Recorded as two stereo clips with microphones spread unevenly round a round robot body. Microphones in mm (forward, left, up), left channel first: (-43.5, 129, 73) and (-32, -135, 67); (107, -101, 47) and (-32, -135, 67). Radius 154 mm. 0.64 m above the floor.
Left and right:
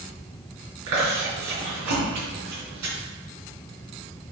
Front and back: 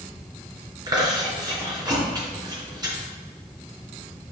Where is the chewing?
105° right, 3.5 m.